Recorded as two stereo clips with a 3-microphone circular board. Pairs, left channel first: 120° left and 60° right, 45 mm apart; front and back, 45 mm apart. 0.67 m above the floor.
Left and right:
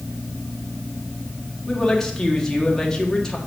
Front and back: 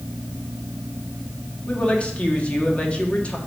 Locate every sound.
1.7 s a woman speaking: 50° left, 1.4 m